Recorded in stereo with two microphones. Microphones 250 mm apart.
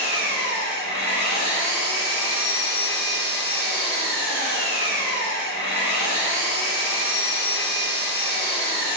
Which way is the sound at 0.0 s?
40° left (ahead or behind).